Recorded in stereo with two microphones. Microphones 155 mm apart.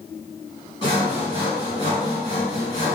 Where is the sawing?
30° left (ahead or behind), 1.8 m.